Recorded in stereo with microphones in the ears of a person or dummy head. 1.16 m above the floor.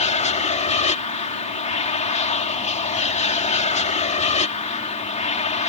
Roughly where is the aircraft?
Left.